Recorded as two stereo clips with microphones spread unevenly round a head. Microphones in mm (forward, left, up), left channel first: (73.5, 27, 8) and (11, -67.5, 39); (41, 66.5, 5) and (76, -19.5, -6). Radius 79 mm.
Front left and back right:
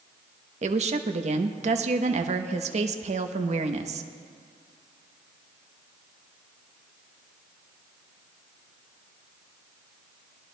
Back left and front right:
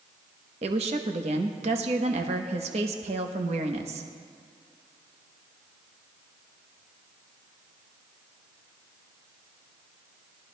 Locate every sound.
0.6 s a woman speaking: 95° right, 0.8 m